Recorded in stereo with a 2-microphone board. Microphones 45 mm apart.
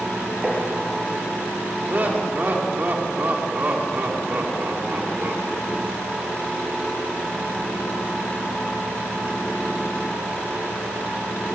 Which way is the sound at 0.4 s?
25° right (ahead or behind).